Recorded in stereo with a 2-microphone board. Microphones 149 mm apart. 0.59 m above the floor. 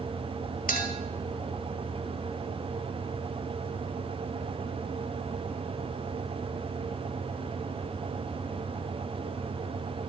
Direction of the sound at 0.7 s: 80° left.